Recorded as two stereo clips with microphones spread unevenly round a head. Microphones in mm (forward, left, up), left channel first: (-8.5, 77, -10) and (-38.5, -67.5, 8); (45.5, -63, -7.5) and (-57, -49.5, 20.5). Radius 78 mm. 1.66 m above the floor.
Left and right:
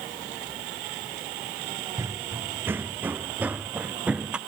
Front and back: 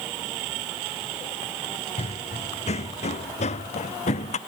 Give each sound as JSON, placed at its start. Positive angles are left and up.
{"t": 2.0, "sound": "running footsteps", "azimuth_deg": -30}